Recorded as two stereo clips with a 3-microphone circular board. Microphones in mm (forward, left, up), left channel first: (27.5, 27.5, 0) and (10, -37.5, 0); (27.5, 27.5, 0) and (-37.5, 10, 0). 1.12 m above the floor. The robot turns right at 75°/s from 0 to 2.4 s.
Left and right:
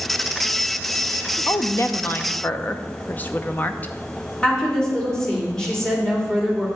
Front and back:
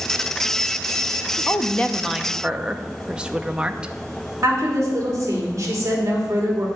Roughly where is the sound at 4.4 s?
Behind left.